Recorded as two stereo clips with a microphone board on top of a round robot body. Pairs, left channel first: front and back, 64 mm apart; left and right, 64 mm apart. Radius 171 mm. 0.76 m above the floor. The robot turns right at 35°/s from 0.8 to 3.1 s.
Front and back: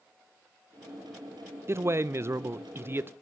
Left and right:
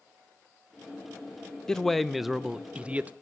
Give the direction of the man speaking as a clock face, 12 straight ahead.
6 o'clock.